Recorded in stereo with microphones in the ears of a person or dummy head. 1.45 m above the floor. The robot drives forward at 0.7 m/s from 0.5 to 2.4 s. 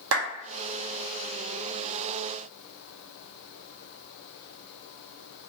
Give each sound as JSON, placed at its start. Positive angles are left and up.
{"t": 0.1, "sound": "a clap", "side_deg": -75, "distance_m": 1.1}